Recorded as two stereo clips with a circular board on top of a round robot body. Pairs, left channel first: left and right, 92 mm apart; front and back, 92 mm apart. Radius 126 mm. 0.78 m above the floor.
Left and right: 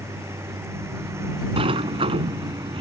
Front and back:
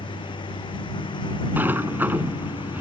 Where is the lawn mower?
30° right.